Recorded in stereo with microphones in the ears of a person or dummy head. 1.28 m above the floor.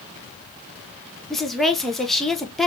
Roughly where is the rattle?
No rattle in this recording.